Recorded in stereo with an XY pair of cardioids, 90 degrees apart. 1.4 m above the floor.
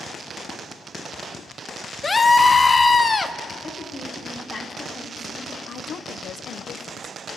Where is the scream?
35° left, 1.1 m.